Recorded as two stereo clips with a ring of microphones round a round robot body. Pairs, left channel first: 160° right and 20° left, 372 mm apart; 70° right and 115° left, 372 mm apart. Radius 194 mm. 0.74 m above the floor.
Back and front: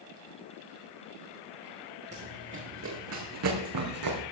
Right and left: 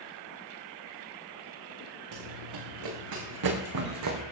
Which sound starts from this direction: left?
Running footsteps, at 2.1 s.